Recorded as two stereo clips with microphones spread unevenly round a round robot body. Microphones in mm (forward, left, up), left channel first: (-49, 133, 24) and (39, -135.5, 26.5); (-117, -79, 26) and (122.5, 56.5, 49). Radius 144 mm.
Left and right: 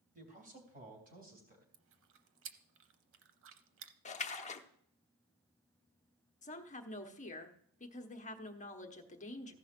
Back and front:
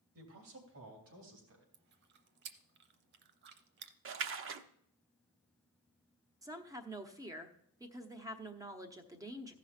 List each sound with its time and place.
0.1 s a man speaking: 10° right, 3 m
1.7 s chewing: 25° right, 0.8 m
4.0 s a splash: 55° left, 0.7 m
6.4 s a woman speaking: 100° left, 1.0 m